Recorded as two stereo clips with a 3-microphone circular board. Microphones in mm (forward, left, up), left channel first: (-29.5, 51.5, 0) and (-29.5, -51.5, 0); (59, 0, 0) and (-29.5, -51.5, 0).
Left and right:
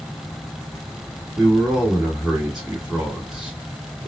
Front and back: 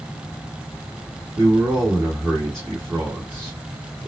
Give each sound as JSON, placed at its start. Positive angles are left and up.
{"t": 1.4, "sound": "a man speaking", "azimuth_deg": -165, "distance_m": 1.5}